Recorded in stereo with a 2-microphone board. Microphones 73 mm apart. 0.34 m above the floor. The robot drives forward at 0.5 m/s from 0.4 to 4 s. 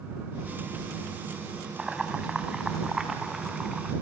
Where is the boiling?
10° right (ahead or behind), 2 m.